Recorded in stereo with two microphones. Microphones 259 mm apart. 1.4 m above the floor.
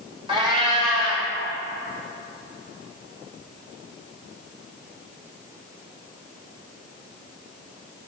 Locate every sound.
0.3 s a cat meowing: 20° right (ahead or behind), 1.2 m